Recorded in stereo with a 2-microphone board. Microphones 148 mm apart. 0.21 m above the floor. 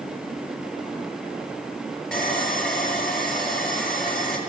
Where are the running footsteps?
No running footsteps in this recording.